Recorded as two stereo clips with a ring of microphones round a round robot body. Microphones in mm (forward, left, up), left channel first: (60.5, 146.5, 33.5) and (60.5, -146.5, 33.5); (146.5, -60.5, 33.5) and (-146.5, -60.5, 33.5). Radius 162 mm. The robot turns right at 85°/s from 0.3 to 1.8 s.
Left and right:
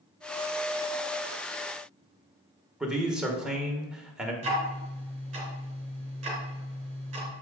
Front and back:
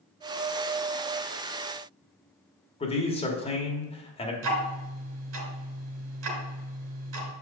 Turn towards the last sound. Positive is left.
turn(degrees=-160)